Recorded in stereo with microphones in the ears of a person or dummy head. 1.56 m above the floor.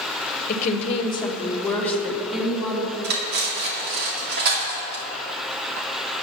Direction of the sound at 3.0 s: 60° right (ahead or behind).